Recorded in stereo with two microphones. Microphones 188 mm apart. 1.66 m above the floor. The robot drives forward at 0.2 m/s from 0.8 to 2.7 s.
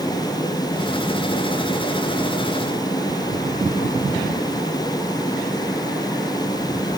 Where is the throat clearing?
No throat clearing in this recording.